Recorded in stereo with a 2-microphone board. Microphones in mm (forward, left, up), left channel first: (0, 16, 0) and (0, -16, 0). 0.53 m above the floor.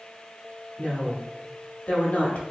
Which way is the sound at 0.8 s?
45° left (ahead or behind).